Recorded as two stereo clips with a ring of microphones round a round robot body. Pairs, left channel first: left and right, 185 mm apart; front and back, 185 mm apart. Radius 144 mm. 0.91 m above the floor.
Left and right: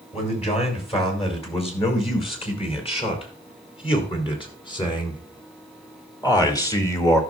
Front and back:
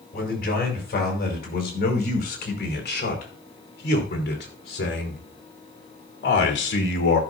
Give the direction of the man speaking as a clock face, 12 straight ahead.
11 o'clock.